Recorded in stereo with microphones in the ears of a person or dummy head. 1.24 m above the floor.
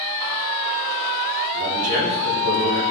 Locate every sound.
1.5 s a man speaking: 75° right (ahead or behind), 3.5 m; by 2.8 s 70° right (ahead or behind), 4 m